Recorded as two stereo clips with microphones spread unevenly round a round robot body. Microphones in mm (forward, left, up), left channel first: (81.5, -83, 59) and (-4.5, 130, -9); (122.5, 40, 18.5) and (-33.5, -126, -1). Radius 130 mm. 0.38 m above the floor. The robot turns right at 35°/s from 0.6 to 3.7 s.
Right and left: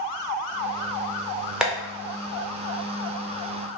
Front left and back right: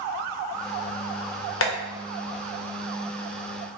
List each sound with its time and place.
1.6 s tapping: 40° left, 0.8 m; by 1.7 s 45° left, 0.8 m